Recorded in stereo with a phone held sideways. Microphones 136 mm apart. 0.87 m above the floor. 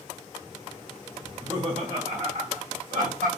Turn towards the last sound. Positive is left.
turn(degrees=-75)  # may be behind; listen again after turning